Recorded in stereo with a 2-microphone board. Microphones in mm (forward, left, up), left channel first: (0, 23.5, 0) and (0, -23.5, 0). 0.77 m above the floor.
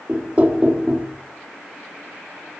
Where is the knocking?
30° right (ahead or behind), 0.8 m.